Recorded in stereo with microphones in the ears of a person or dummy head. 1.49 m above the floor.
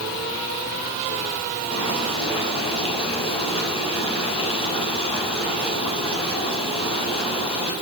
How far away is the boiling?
About 7.5 m.